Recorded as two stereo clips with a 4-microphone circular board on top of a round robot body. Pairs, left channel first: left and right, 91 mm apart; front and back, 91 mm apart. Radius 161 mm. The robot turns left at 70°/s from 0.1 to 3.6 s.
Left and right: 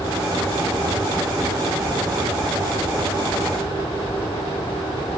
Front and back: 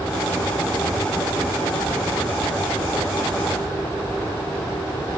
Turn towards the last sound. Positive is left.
No sound to turn to.